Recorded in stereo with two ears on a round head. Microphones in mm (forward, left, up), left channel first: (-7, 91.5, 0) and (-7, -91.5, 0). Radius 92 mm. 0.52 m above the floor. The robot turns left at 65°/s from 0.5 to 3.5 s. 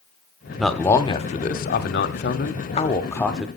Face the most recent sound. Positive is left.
turn(degrees=-5)